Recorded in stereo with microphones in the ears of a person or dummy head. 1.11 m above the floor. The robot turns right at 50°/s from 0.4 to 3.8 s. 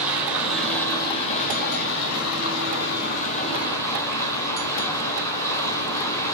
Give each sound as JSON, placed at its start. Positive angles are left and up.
{"t": 0.0, "sound": "running water", "azimuth_deg": -15, "distance_m": 5.0}